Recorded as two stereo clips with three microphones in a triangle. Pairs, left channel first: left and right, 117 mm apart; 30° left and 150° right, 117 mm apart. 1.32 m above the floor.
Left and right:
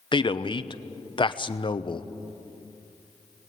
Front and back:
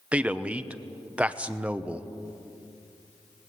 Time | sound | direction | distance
0.1 | a man speaking | 135° left | 0.8 m